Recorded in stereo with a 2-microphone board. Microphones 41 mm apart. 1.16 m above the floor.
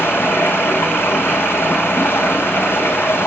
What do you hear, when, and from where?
0.0 s running water: 65° left (ahead or behind), 6 m